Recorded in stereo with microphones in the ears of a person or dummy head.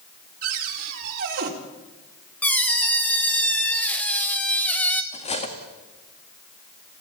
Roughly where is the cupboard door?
Right.